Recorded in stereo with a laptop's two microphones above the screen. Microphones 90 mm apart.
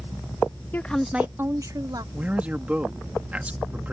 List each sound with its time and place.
0.7 s a woman speaking: 25° left (ahead or behind); by 2.0 s 50° right (ahead or behind)
2.1 s a man speaking: 15° right (ahead or behind)